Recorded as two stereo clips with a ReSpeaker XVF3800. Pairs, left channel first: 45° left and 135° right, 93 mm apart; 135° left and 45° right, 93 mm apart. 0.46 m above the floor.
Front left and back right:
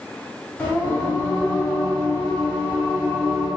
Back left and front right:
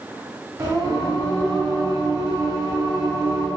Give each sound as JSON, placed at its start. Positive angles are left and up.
{"t": 0.6, "sound": "singing", "azimuth_deg": -15, "distance_m": 1.2}